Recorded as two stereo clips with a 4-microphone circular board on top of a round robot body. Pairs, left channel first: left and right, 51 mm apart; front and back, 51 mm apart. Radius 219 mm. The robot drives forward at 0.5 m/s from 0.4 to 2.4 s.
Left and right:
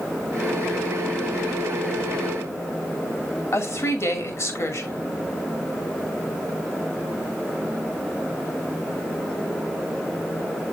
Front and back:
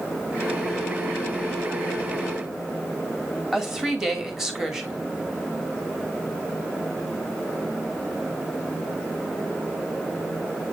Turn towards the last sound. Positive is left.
turn(degrees=100)